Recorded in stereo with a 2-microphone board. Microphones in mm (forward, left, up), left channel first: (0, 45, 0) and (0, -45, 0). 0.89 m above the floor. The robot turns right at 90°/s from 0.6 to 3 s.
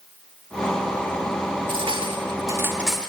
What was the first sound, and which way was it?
Cutlery clinking, 65° right (ahead or behind).